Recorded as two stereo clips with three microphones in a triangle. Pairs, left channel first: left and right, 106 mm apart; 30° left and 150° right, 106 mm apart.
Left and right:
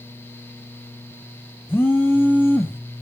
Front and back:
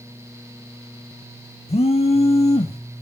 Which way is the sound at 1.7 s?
20° left.